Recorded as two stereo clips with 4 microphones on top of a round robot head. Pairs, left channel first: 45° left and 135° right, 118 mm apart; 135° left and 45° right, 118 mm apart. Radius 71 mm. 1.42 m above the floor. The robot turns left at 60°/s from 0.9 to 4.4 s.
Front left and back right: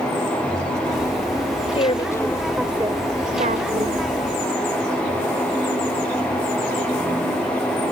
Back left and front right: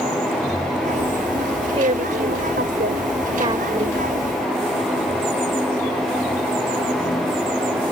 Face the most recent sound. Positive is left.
turn(degrees=-160)